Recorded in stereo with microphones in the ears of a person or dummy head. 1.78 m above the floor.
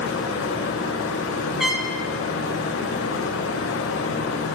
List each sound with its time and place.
0.0 s a fan: 70° left (ahead or behind), 0.8 m
1.6 s a trumpet: centre (ahead or behind), 1.0 m